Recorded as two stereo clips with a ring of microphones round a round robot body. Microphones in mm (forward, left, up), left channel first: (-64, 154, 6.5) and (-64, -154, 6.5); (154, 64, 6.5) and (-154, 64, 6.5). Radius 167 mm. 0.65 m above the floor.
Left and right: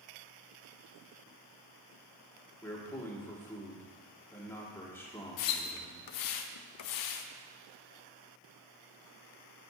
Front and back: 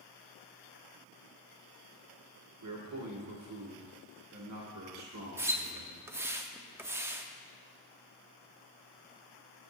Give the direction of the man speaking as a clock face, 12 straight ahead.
6 o'clock.